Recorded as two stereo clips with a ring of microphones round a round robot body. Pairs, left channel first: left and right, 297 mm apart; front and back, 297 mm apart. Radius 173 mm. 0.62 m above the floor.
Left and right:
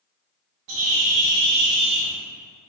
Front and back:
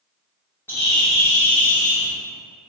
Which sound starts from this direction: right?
A bird, at 0.7 s.